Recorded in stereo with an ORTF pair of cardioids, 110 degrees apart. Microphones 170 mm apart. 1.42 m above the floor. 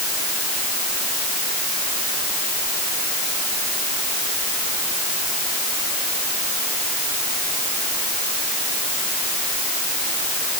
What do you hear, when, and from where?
Only background noise.